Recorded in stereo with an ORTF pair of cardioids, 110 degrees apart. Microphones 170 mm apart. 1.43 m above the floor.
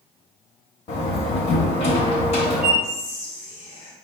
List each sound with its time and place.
0.9 s a door slam: 40° left, 1.0 m
2.8 s whispering: 70° left, 1.1 m